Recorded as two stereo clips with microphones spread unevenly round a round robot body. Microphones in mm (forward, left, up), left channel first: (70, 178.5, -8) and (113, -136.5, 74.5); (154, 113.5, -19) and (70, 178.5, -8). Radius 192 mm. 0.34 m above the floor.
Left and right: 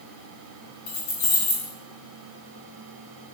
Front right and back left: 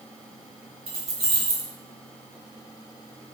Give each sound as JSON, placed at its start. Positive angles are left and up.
{"t": 0.9, "sound": "keys jangling", "azimuth_deg": 130, "distance_m": 1.5}